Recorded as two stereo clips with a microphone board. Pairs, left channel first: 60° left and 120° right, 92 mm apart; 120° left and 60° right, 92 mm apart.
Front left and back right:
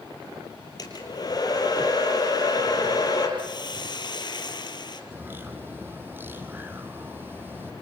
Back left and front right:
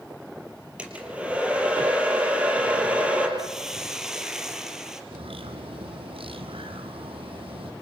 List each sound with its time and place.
0.8 s a hair dryer: 15° left, 4.5 m
3.4 s a hiss: 25° left, 2.5 m
5.1 s a bird: 50° right, 1.8 m